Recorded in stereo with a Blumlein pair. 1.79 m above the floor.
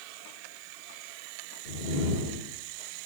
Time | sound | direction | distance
1.6 | a whoosh | 50° left | 3 m